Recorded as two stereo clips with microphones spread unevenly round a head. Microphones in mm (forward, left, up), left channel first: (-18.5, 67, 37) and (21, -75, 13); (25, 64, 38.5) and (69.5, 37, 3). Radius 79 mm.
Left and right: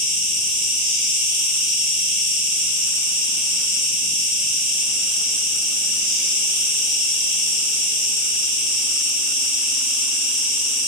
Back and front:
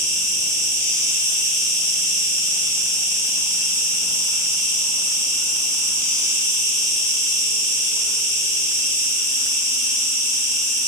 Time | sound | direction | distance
0.0 | an insect | 5° left | 1.9 m